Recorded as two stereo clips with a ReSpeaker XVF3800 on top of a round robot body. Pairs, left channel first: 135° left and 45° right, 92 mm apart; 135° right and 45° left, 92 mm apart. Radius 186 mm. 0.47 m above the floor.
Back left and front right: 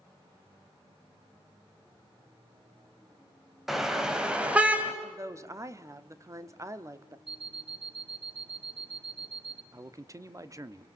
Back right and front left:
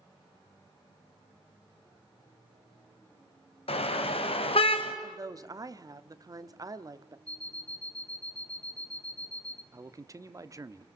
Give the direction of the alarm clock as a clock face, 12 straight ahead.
2 o'clock.